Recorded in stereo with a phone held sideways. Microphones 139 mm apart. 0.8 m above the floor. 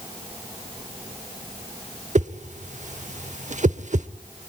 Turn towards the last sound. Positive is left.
turn(degrees=-60)  # may be behind; listen again after turning